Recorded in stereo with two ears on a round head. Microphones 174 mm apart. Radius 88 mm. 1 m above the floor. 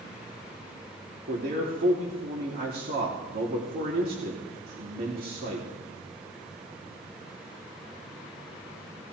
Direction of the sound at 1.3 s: 50° right (ahead or behind).